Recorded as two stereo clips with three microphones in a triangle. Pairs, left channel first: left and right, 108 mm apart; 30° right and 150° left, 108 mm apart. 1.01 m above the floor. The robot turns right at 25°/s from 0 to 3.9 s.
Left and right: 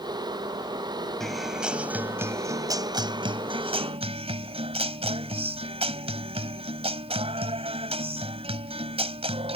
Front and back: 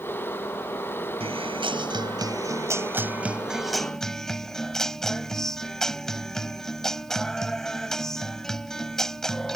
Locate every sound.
1.2 s a guitar: 175° left; by 9.6 s 115° right